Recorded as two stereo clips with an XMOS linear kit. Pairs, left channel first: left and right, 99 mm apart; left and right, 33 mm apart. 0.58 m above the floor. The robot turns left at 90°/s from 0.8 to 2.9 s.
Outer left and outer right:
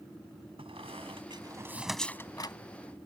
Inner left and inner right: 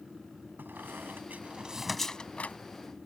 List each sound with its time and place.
0.6 s a squeak: 75° right (ahead or behind); by 2.6 s 55° left (ahead or behind)